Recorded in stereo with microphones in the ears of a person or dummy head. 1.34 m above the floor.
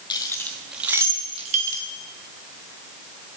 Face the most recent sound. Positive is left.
turn(degrees=-50)  # may be behind; listen again after turning